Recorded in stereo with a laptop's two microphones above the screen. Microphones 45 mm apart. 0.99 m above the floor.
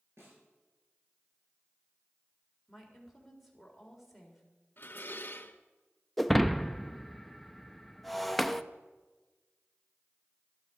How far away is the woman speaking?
About 4 m.